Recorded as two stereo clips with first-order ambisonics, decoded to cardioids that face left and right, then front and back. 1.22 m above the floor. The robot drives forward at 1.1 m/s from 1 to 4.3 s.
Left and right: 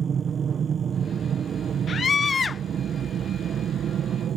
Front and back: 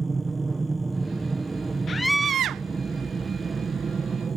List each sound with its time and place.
0.0 s an aircraft: 120° right; by 4.4 s 125° right
1.9 s a scream: 45° left; by 2.6 s 160° left